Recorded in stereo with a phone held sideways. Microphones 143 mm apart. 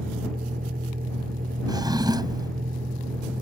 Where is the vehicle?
80° right.